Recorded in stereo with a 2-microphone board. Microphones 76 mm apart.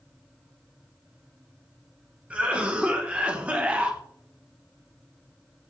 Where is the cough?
15° right (ahead or behind), 0.8 m.